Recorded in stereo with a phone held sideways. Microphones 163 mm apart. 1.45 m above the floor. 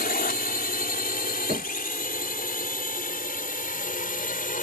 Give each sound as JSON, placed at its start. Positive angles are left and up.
{"t": 0.0, "sound": "a drone", "side_deg": 80}
{"t": 1.5, "sound": "knocking", "side_deg": -50}